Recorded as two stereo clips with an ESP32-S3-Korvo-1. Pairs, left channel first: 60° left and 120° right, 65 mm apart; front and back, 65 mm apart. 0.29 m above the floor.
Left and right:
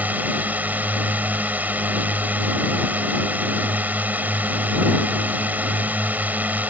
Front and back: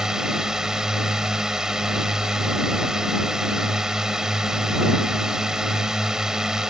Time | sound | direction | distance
0.0 | a drone | 110° right | ?